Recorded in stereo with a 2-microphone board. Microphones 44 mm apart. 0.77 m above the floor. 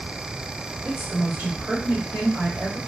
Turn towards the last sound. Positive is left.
turn(degrees=-25)  # may be behind; listen again after turning